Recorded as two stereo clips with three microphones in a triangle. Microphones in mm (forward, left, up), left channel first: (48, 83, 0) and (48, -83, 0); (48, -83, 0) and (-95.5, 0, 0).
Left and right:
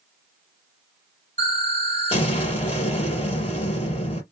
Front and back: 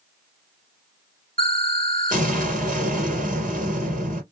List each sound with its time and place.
1.4 s an explosion: 135° left, 2.5 m